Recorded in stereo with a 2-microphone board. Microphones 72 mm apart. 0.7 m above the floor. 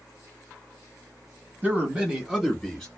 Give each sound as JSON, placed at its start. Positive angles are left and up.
{"t": 1.6, "sound": "a man speaking", "side_deg": -25, "distance_m": 1.2}